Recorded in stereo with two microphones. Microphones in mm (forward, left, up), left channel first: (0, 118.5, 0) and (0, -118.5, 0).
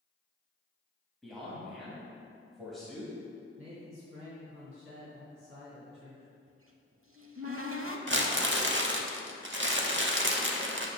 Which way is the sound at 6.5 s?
65° right (ahead or behind).